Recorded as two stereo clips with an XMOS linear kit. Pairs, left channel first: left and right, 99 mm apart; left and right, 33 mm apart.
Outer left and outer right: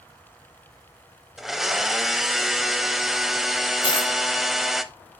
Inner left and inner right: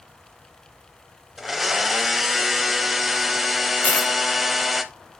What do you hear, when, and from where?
1.4 s a blender: 5° right (ahead or behind), 0.6 m
3.8 s a dropped coin: 55° left (ahead or behind), 0.6 m